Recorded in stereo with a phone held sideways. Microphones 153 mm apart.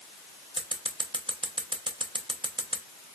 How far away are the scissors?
About 1.0 m.